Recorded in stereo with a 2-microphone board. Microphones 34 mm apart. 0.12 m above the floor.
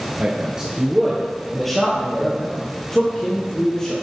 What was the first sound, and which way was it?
A man speaking, 35° right (ahead or behind).